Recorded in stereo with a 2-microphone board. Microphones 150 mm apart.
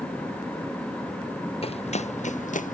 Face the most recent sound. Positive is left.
turn(degrees=60)  # may be behind; listen again after turning